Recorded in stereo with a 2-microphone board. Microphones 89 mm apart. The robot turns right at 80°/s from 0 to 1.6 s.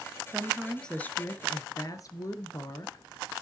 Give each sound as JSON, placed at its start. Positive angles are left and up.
{"t": 0.3, "sound": "a woman speaking", "azimuth_deg": -30, "distance_m": 1.4}